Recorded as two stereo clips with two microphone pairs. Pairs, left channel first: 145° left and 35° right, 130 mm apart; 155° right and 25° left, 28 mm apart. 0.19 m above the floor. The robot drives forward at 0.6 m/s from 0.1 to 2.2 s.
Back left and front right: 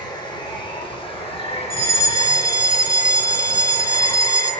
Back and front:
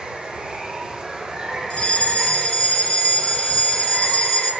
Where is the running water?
85° left, 4 m; by 4.6 s 105° left, 4 m.